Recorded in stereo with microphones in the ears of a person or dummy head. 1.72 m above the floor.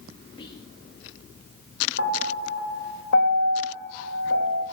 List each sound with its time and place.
0.4 s whispering: 30° left (ahead or behind), 1.0 m
2.0 s a piano: 75° left (ahead or behind), 2 m